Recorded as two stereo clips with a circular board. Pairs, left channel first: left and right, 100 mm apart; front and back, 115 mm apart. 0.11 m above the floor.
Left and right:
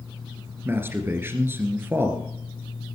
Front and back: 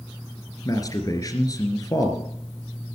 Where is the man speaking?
35° right, 1.9 m.